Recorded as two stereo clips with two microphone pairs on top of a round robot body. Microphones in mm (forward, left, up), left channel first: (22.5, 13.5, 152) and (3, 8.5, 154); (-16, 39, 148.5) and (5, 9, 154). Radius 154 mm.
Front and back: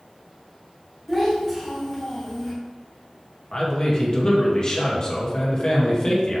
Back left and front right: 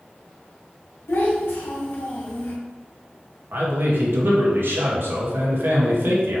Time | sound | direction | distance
1.1 | a child speaking | 100° left | 2 m
3.5 | a man speaking | 40° right | 1.9 m